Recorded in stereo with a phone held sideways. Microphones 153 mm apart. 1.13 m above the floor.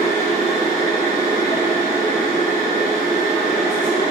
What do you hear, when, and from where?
0.0 s a machine running: 50° right (ahead or behind), 1.2 m